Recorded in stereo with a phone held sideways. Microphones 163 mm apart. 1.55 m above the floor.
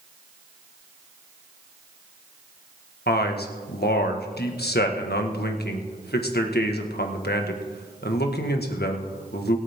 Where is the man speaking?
85° left, 1.6 m.